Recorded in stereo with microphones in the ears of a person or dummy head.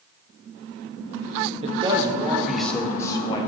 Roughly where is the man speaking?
Right.